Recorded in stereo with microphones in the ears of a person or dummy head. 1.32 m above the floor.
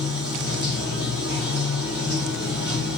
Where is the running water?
70° right (ahead or behind), 1.4 m.